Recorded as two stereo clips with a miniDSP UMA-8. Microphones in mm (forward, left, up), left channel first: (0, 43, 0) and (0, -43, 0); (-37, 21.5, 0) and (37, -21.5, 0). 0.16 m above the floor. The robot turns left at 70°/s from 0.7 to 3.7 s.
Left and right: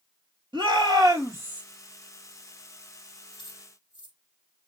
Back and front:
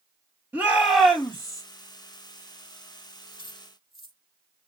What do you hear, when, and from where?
0.5 s a shout: 95° right, 3 m; by 1.6 s 160° right, 3 m
3.3 s keys jangling: 90° left, 3 m; by 4.2 s 60° left, 3 m